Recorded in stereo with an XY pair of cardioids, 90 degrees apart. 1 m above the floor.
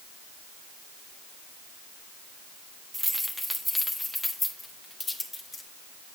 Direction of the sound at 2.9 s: 10° right.